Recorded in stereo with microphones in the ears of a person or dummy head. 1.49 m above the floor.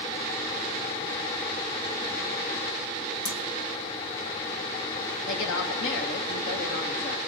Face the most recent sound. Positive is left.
turn(degrees=75)  # may be behind; listen again after turning